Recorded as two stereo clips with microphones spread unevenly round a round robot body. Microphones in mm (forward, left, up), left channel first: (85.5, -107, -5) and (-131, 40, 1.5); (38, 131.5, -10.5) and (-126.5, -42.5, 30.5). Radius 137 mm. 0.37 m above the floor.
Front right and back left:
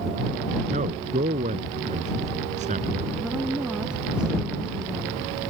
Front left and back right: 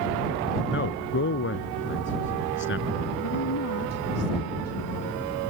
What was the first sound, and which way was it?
A man speaking, 80° left.